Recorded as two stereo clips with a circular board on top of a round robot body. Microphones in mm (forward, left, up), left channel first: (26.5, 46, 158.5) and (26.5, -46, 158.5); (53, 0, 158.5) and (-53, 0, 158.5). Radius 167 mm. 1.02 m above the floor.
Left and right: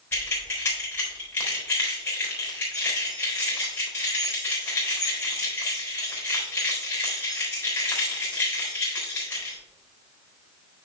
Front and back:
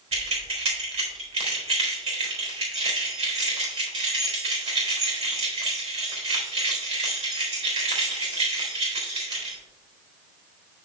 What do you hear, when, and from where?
0.1 s keys jangling: 155° left, 3.5 m